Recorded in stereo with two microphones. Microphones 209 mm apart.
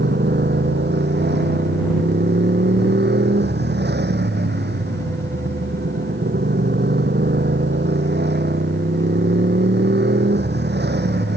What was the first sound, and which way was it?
A motorcycle, 55° right (ahead or behind).